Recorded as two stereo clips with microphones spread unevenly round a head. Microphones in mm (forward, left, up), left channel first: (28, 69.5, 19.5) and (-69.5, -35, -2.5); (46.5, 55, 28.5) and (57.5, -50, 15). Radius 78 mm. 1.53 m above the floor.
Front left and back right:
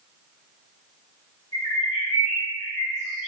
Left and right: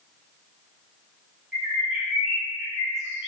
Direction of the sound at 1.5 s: 10° left.